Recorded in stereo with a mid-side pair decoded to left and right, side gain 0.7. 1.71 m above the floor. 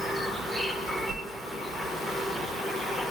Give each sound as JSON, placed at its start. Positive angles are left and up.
{"t": 0.0, "sound": "an insect", "azimuth_deg": 0, "distance_m": 0.8}
{"t": 1.1, "sound": "a whoosh", "azimuth_deg": -60, "distance_m": 0.6}